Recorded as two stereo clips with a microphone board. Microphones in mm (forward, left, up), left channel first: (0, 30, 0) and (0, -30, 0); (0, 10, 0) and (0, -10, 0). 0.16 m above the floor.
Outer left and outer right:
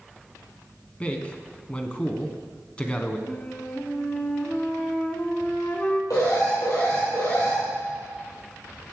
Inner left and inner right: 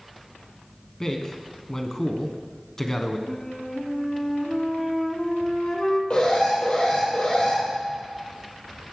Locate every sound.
1.0 s a man speaking: 25° left (ahead or behind), 1.1 m
3.3 s a flute: 20° left (ahead or behind), 1.0 m
6.1 s an alarm: 75° left (ahead or behind), 4.5 m